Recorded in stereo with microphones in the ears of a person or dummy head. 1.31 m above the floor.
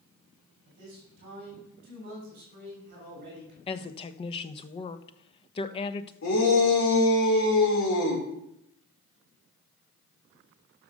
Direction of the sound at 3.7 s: 25° left (ahead or behind).